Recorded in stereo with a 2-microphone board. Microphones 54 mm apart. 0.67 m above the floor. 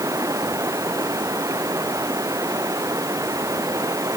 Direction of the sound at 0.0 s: 75° right (ahead or behind).